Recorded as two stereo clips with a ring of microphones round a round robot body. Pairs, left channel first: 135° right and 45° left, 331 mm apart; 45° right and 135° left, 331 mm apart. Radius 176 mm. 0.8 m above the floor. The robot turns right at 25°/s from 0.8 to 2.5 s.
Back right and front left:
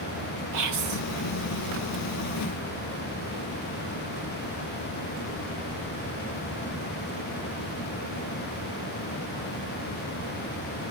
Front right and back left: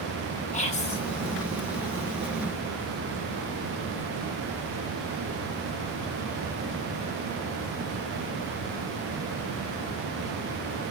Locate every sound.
0.5 s whispering: 25° left, 2 m; by 1.0 s 30° left, 2 m